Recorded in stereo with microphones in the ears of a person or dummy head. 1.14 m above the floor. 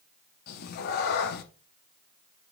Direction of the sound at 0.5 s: 50° left (ahead or behind).